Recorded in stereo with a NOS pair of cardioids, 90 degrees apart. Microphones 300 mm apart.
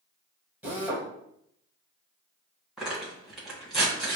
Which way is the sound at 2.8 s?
Straight ahead.